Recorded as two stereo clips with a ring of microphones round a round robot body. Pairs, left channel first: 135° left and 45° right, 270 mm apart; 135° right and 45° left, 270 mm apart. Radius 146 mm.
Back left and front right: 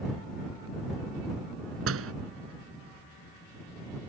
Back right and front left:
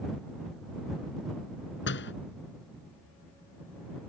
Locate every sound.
1.9 s a door slam: 85° right